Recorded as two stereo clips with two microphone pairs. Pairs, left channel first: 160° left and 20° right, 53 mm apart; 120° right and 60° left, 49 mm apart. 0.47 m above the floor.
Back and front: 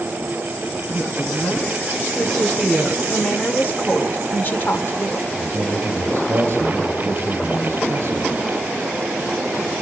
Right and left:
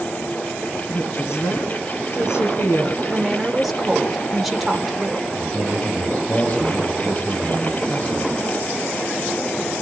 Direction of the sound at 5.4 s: 65° right.